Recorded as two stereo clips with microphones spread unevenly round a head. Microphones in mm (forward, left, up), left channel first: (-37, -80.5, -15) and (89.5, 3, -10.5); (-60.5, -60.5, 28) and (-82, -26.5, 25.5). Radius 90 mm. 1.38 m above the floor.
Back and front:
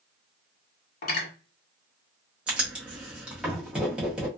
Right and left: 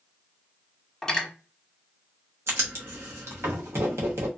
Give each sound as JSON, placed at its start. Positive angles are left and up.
{"t": 1.0, "sound": "cutlery clinking", "azimuth_deg": -130, "distance_m": 1.4}
{"t": 2.5, "sound": "writing", "azimuth_deg": 115, "distance_m": 0.8}